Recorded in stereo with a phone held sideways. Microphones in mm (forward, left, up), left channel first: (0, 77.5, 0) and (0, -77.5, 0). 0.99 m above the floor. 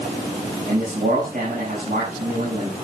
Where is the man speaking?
65° right (ahead or behind), 7 m.